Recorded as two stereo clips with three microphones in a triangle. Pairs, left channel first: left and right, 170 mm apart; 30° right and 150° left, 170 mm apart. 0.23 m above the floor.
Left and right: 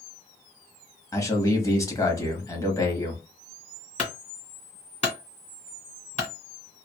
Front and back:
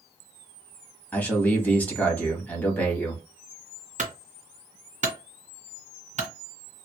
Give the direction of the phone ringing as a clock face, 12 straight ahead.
No phone ringing in this recording.